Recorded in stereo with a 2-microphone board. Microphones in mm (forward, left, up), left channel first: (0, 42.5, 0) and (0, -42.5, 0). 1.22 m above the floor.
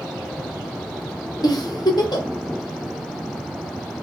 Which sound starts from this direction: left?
A giggle, at 1.4 s.